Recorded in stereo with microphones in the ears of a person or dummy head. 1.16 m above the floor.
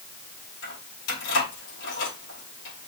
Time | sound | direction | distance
0.6 | keys jangling | 90° left | 3.5 m